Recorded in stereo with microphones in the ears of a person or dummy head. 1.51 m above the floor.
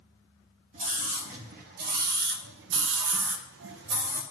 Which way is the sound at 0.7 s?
40° right (ahead or behind).